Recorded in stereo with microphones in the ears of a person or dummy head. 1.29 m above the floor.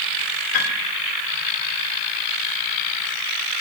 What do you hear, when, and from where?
0.5 s a piano: 60° left (ahead or behind), 2.5 m